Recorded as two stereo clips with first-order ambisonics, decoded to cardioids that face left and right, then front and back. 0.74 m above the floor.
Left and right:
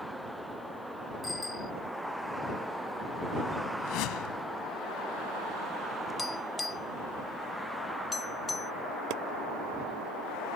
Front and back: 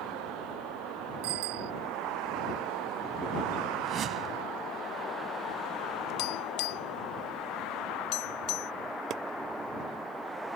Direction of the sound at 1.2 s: 170° left.